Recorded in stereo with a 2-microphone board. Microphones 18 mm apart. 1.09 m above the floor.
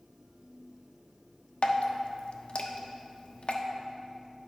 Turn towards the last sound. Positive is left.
turn(degrees=75)  # may be behind; listen again after turning